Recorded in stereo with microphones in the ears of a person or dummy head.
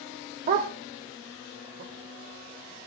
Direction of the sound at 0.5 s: 35° right (ahead or behind).